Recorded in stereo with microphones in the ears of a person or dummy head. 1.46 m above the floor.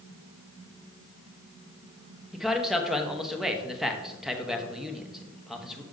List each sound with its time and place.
2.3 s a man speaking: 5° right (ahead or behind), 0.8 m